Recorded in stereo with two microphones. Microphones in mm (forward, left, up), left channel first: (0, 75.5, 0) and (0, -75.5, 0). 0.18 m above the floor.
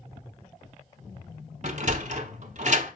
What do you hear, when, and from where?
1.6 s a sliding door: 55° right (ahead or behind), 0.7 m